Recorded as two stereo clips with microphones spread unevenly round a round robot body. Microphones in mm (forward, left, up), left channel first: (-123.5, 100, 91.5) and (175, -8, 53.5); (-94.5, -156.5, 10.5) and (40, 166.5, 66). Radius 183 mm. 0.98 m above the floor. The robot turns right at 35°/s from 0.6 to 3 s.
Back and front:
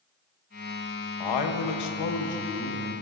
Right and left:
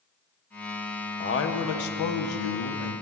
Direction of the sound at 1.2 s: 175° right.